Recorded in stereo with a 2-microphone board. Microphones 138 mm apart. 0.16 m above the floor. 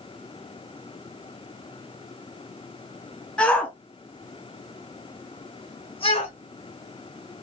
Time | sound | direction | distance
3.4 | a shout | 5° left (ahead or behind) | 1.6 m